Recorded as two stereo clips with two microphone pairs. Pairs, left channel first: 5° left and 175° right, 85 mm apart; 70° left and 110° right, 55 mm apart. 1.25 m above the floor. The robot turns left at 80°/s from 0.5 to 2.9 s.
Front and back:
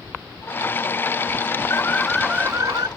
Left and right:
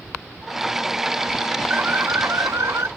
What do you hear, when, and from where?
1.7 s an alarm: 50° right; by 2.9 s 140° right